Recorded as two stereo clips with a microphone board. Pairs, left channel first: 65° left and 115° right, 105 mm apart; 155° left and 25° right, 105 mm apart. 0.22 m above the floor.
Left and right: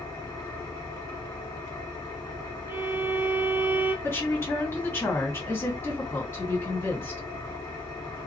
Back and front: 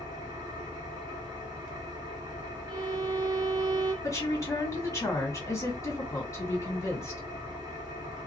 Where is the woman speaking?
125° left, 2.0 m.